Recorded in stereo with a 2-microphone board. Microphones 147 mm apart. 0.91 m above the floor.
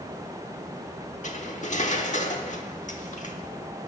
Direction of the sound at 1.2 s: 55° left (ahead or behind).